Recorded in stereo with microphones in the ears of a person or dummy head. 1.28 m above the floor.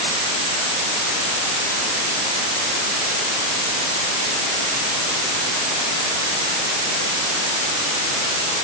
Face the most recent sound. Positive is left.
No sound to turn to.